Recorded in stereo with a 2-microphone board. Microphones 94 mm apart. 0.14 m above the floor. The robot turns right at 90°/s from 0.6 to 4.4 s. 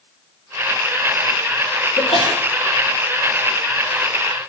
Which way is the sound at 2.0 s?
80° left.